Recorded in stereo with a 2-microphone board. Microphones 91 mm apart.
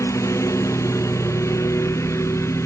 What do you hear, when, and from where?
0.0 s a lawn mower: 35° left (ahead or behind); by 2.7 s 30° left (ahead or behind)